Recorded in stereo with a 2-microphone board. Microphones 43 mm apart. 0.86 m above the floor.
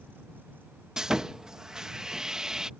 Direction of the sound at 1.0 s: 15° right (ahead or behind).